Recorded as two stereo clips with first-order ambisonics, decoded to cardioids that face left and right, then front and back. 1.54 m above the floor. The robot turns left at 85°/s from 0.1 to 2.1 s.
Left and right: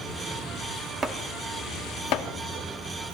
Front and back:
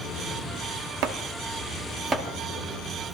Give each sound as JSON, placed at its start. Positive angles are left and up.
{"t": 1.0, "sound": "chopping", "azimuth_deg": -160, "distance_m": 0.6}